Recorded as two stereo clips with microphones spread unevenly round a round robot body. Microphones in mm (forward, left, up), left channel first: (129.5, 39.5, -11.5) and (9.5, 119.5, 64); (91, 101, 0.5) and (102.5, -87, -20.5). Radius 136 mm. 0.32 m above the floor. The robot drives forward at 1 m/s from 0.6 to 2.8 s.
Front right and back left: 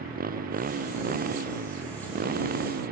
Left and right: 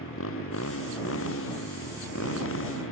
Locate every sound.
0.0 s a motorcycle: 130° left; by 2.9 s 135° left